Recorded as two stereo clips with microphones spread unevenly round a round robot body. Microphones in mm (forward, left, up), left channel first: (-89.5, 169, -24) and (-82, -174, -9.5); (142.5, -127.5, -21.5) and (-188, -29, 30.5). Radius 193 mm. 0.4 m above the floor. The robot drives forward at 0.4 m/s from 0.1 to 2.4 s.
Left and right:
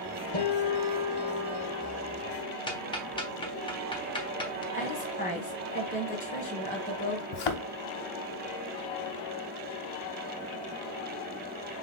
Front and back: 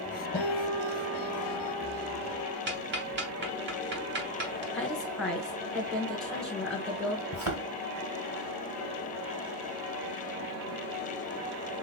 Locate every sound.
0.3 s a guitar: 70° left, 3 m; by 2.6 s 85° left, 3 m
2.7 s ticking: 140° left, 1.0 m
4.7 s a woman speaking: 55° left, 1.0 m
7.3 s a thud: 105° left, 0.9 m